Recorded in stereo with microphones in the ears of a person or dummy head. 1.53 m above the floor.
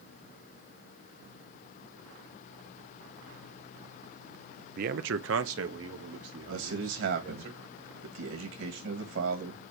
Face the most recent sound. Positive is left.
turn(degrees=-65)  # may be behind; listen again after turning